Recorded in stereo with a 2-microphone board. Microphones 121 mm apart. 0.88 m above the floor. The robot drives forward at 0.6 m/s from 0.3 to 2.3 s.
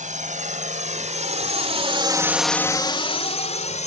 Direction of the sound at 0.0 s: 80° right.